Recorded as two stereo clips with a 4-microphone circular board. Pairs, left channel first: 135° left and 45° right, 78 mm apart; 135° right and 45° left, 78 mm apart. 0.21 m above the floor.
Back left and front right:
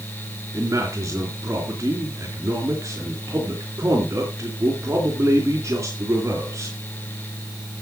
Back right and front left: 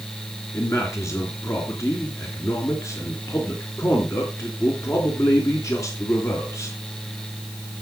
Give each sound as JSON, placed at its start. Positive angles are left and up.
{"t": 0.5, "sound": "a man speaking", "azimuth_deg": -90, "distance_m": 3.5}